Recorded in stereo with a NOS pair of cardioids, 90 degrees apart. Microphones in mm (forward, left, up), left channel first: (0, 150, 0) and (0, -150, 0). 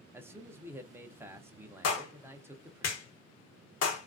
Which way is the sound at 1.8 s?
55° left.